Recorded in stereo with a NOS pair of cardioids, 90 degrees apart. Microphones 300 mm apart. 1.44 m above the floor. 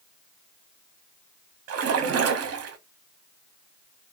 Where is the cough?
No cough in this recording.